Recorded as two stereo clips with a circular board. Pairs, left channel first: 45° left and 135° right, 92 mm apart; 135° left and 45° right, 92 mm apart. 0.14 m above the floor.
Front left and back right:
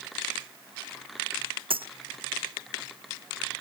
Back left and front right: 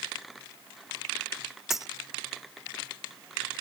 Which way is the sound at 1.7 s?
130° right.